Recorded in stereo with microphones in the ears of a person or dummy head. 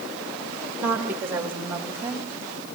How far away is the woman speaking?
About 1.8 m.